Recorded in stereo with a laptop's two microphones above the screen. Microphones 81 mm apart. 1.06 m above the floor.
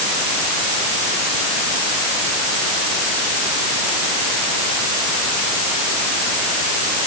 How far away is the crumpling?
No crumpling in this recording.